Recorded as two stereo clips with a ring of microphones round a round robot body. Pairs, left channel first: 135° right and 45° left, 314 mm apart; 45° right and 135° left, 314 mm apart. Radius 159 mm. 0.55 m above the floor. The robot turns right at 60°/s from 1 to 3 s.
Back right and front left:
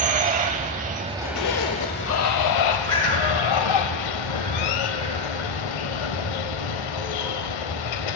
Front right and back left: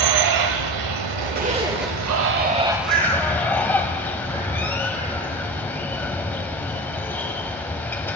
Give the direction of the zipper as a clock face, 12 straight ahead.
6 o'clock.